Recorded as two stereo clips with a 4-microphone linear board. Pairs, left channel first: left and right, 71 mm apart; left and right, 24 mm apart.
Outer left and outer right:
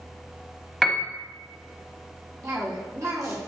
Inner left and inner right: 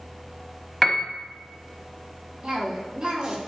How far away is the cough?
About 2.5 m.